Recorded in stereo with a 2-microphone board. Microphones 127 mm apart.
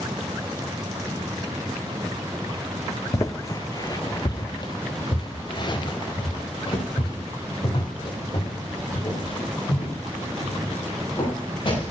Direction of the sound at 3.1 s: 25° left (ahead or behind).